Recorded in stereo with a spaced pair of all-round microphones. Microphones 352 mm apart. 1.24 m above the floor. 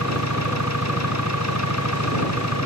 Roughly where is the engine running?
Left.